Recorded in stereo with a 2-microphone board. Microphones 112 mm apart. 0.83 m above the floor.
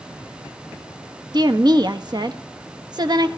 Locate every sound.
1.3 s a woman speaking: 40° right (ahead or behind), 1.0 m